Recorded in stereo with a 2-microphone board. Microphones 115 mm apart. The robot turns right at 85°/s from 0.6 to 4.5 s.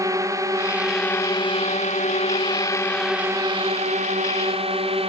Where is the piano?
I don't hear a piano.